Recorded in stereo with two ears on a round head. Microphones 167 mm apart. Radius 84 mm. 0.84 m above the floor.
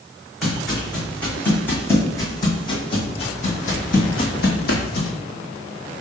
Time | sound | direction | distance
0.4 | footsteps | centre (ahead or behind) | 2.5 m